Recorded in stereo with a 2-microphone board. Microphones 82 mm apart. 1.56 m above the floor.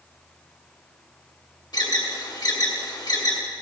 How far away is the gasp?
I don't hear a gasp.